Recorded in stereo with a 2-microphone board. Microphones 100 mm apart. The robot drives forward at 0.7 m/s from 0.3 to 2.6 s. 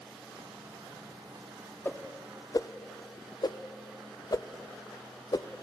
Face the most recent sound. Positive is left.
turn(degrees=40)  # may be behind; listen again after turning